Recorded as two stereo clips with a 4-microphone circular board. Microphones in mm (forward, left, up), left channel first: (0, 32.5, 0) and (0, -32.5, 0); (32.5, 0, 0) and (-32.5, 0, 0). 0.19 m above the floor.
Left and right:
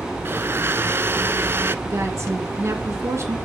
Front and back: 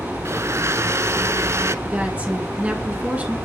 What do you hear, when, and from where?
0.2 s a blender: 140° right, 0.5 m
1.9 s a woman speaking: 120° right, 2.5 m